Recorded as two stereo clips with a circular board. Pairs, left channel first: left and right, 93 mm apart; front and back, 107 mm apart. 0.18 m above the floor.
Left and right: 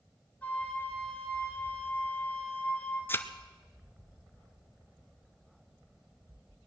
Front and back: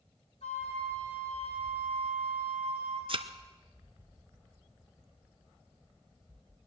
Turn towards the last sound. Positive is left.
turn(degrees=155)